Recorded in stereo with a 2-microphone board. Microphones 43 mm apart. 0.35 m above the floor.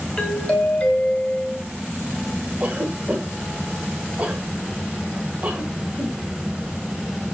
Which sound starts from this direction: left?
A doorbell, at 0.2 s.